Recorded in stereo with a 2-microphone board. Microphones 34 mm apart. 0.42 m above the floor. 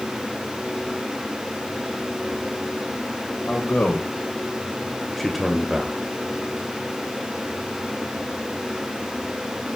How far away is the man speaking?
About 2.5 m.